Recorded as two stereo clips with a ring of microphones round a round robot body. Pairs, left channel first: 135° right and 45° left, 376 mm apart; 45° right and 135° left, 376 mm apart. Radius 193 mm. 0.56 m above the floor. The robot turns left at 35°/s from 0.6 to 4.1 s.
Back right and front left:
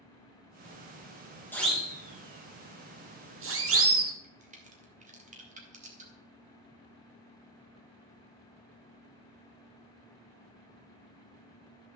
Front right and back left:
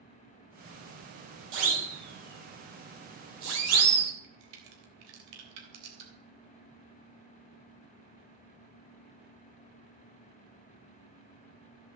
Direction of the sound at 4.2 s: 115° left.